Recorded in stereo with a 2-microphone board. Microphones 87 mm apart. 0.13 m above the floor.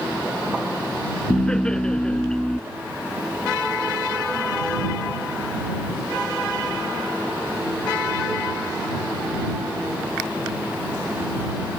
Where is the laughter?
10° left (ahead or behind).